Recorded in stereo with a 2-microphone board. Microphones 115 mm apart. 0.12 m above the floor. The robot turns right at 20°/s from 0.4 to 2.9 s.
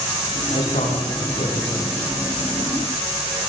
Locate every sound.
0.5 s a man speaking: 100° left, 9.5 m; by 2.0 s 130° left, 9.5 m